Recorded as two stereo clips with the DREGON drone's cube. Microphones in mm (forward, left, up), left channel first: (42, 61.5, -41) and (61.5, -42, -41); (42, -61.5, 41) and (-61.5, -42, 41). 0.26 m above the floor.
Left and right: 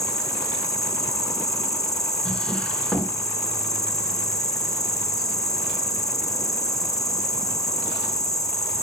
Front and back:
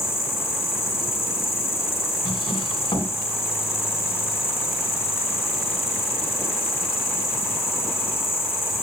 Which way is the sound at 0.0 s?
50° left.